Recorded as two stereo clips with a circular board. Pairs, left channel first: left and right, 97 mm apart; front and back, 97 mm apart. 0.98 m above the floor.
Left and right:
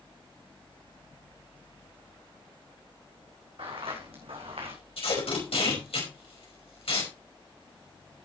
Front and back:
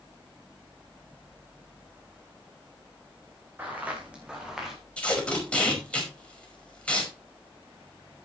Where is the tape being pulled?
80° left, 5 m.